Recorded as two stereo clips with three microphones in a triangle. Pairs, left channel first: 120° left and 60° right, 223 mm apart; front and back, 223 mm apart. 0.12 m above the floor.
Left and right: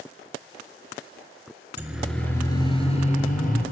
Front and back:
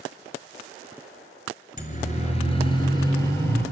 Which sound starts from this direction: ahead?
A siren, at 1.8 s.